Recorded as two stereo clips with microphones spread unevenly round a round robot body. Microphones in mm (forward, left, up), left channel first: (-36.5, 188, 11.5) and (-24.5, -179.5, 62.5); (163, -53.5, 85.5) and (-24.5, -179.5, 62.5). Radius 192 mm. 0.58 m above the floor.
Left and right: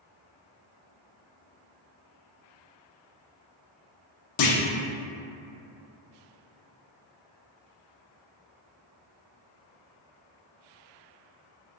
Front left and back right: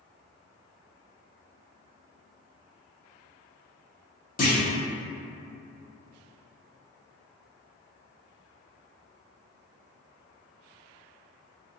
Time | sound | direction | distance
4.4 | a clunk | 85° left | 0.7 m